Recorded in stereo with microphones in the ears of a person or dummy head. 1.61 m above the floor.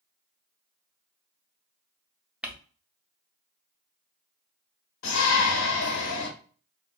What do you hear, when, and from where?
2.4 s crumpling: 10° right (ahead or behind), 0.6 m
5.0 s a shout: 80° left, 1.2 m